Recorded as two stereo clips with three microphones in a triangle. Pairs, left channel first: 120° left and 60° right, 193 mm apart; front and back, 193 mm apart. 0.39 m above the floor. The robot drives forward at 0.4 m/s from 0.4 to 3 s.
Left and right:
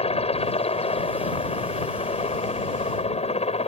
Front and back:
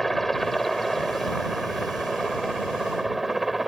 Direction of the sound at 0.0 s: 90° left.